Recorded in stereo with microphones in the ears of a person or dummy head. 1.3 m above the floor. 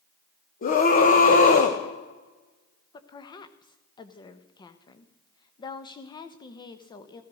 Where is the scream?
45° left (ahead or behind), 1.4 m.